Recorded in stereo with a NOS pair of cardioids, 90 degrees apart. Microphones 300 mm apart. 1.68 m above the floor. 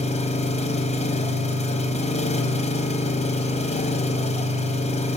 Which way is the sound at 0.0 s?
25° left.